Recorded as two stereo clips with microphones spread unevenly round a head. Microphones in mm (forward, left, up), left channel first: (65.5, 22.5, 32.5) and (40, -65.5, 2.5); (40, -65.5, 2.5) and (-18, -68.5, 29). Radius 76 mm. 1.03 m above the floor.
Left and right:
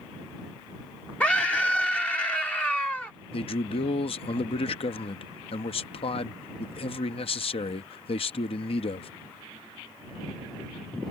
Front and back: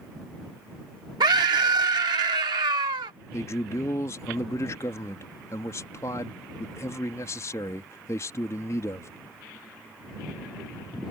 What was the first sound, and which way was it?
A scream, 155° left.